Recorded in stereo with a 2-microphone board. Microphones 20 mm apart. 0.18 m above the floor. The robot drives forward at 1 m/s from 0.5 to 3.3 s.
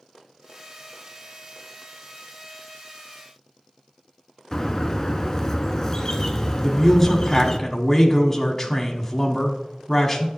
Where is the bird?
20° left (ahead or behind), 0.8 m.